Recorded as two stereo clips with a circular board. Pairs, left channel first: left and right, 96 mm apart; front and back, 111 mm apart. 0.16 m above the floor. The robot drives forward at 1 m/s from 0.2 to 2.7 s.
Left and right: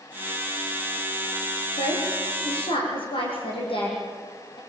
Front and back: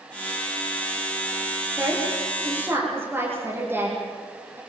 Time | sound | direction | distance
1.8 | a woman speaking | 105° left | 9 m